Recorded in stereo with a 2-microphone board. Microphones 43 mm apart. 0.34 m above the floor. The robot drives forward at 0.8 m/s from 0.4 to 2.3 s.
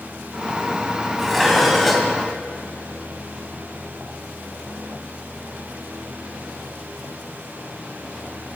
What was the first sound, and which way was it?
Dishes clattering, 5° left (ahead or behind).